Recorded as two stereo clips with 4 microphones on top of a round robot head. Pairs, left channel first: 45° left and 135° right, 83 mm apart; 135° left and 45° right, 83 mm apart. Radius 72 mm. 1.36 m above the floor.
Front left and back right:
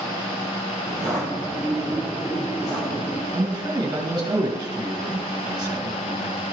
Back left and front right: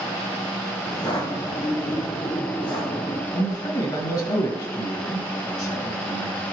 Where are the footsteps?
100° left, 1.5 m.